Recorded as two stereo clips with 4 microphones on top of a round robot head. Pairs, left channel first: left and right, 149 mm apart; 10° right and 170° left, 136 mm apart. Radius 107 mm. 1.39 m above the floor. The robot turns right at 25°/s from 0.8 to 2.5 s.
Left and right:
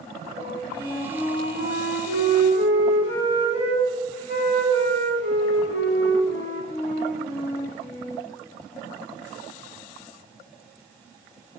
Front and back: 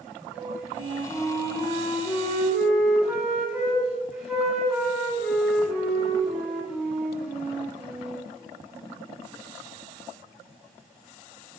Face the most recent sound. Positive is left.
turn(degrees=85)